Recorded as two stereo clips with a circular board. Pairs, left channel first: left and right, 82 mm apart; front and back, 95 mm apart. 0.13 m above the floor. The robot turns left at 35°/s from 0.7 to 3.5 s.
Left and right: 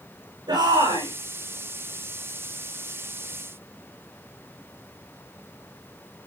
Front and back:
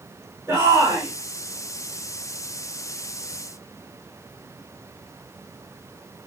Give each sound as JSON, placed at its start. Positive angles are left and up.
{"t": 0.5, "sound": "a shout", "azimuth_deg": -110, "distance_m": 8.5}